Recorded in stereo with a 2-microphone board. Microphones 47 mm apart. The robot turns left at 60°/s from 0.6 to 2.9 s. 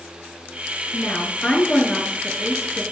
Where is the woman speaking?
70° left, 1.2 m; by 2.8 s 45° right, 1.2 m.